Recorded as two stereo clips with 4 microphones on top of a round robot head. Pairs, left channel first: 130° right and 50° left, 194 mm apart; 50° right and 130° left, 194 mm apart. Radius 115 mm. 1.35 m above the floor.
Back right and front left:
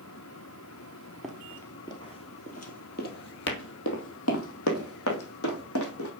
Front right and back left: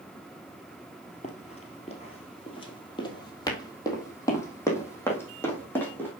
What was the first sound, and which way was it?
Running footsteps, 40° right.